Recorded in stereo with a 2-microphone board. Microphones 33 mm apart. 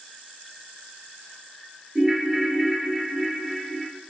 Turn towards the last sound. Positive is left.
turn(degrees=0)  # may be behind; listen again after turning